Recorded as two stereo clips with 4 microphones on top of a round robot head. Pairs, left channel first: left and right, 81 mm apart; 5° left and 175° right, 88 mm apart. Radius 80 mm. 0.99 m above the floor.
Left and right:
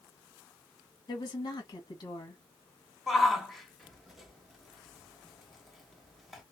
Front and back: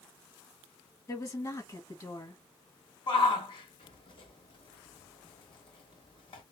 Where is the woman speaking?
55° left, 1.3 m.